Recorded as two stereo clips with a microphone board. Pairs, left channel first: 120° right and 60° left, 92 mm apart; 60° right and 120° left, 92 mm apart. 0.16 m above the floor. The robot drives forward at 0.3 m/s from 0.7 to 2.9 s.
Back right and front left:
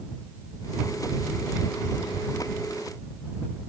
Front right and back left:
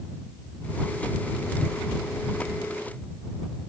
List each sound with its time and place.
Only background noise.